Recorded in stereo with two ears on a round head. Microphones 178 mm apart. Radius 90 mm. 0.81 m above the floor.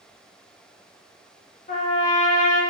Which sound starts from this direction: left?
A trumpet, at 1.7 s.